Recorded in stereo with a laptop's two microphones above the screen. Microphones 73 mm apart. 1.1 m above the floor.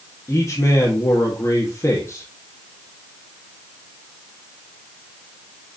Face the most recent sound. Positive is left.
turn(degrees=45)  # may be behind; listen again after turning